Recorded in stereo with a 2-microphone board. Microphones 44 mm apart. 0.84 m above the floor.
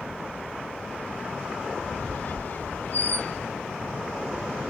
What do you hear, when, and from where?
1.8 s a squeak: 50° left (ahead or behind), 1.4 m